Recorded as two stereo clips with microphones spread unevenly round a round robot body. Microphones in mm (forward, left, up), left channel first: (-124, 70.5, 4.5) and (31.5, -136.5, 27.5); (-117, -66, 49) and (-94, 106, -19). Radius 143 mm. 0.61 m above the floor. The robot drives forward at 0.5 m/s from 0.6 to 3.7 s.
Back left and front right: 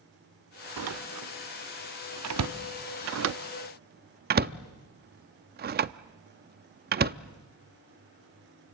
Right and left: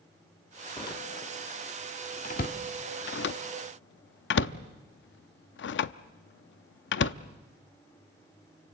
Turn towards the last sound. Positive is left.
turn(degrees=-100)